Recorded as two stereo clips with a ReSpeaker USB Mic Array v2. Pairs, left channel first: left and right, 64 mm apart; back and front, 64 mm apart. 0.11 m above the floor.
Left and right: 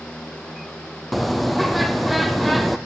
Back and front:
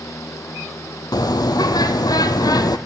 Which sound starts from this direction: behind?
A bird, at 1.1 s.